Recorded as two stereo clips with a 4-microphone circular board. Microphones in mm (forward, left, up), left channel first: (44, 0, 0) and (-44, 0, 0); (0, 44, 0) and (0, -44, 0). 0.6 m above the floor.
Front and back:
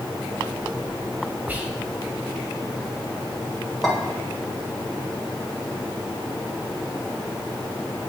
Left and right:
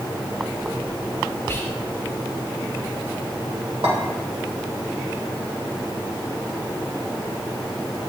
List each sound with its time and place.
1.5 s whispering: 125° left, 1.0 m
3.8 s a clink: 90° right, 1.6 m